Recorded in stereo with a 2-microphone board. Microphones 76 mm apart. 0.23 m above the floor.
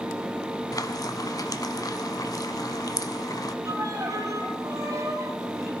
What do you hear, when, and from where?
0.7 s frying: 50° left (ahead or behind), 0.7 m
3.6 s a violin: 45° right (ahead or behind), 2.5 m